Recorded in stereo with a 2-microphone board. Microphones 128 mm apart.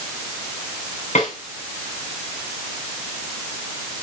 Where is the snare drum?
65° left (ahead or behind), 6 m.